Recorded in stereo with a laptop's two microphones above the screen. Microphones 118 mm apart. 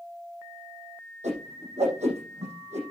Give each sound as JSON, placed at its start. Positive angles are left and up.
{"t": 1.2, "sound": "a whoosh", "side_deg": -75, "distance_m": 8.0}